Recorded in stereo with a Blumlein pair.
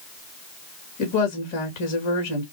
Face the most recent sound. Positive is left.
turn(degrees=45)